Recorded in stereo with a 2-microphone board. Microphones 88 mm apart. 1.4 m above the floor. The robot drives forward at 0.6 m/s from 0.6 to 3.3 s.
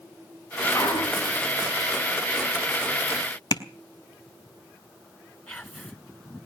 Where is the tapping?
50° left (ahead or behind), 1.3 m.